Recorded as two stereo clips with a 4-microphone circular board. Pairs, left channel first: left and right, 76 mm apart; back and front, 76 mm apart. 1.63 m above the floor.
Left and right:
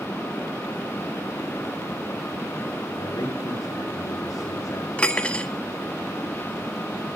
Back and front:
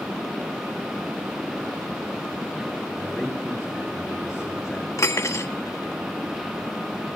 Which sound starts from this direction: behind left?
Cutlery clinking, at 5.0 s.